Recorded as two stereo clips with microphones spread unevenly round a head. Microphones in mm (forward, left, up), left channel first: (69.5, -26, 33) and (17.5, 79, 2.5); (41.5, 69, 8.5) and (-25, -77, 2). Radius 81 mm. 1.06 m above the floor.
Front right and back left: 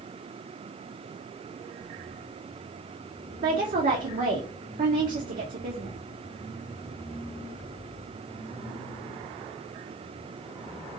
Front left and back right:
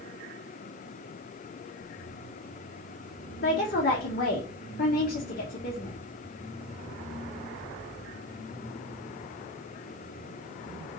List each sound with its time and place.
3.4 s a woman speaking: 105° left, 0.6 m